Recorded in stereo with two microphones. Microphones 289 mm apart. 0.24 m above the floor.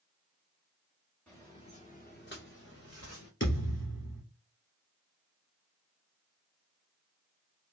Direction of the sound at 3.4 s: 40° left (ahead or behind).